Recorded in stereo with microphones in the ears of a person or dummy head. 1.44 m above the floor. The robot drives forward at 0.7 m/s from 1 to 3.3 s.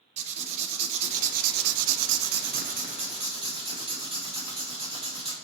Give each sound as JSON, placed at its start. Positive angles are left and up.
{"t": 0.2, "sound": "writing", "side_deg": -40, "distance_m": 0.9}